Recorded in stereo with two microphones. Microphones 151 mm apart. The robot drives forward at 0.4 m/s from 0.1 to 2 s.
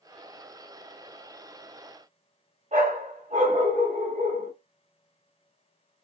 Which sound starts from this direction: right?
A dog barking, at 2.7 s.